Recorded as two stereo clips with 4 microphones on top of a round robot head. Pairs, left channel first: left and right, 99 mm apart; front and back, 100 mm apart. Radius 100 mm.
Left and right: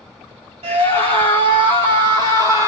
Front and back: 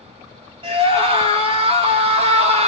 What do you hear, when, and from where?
0.6 s a scream: 130° right, 3.5 m; by 2.7 s 160° right, 2 m